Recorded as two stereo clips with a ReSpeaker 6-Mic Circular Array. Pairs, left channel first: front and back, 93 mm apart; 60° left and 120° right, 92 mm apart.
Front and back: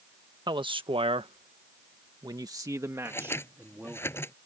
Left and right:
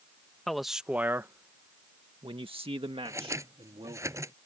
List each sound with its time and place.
0.5 s a man speaking: 145° left; by 4.0 s 105° right
3.0 s scissors: 65° right